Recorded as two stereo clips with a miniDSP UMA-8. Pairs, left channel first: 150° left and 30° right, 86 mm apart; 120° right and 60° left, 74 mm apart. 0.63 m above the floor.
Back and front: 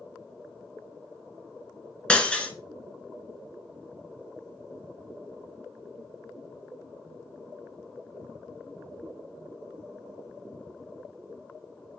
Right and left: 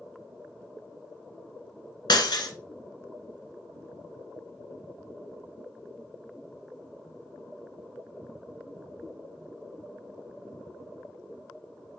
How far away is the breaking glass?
About 1.7 m.